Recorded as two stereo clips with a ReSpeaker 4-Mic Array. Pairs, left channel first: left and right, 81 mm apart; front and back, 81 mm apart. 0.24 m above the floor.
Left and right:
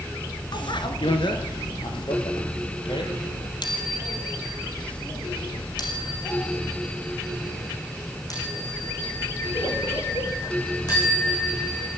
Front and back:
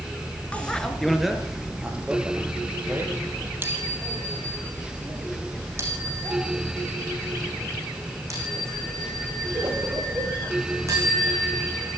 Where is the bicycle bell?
75° left, 2 m; by 11.9 s 130° left, 13.5 m.